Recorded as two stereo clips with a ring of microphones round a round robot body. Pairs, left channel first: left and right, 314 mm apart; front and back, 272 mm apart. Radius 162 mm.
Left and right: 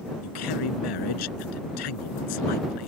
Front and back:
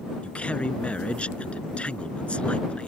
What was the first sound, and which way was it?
A man speaking, 85° left.